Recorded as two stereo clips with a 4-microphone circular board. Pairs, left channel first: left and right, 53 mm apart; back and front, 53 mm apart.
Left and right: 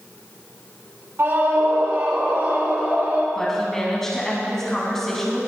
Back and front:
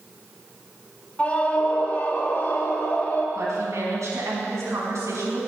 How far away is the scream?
About 2.5 m.